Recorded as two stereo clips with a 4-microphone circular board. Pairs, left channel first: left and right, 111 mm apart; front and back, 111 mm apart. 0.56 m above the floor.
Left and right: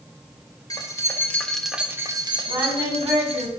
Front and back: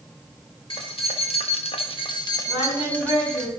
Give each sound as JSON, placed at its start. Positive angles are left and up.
{"t": 0.7, "sound": "keys jangling", "azimuth_deg": 35, "distance_m": 1.6}
{"t": 2.5, "sound": "singing", "azimuth_deg": -30, "distance_m": 4.0}